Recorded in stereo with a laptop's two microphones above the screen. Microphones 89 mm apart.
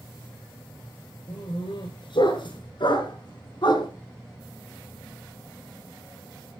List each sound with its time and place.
1.3 s a dog barking: 65° left (ahead or behind), 7 m; by 3.9 s 55° left (ahead or behind), 3.5 m